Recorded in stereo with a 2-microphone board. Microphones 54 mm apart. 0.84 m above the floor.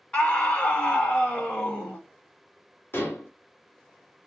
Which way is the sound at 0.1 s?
20° left (ahead or behind).